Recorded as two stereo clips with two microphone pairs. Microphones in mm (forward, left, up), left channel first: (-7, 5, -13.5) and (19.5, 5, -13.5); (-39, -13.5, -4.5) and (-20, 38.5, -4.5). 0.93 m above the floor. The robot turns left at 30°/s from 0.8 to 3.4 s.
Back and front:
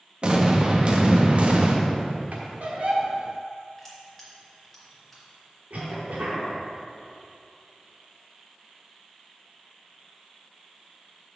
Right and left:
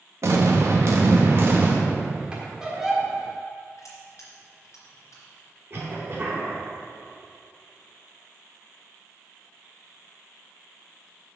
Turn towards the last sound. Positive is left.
turn(degrees=25)